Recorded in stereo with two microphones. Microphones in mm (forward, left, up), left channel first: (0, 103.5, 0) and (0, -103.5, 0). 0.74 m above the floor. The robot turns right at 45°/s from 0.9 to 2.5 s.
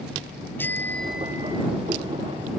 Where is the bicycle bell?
170° left; by 1.6 s 155° right.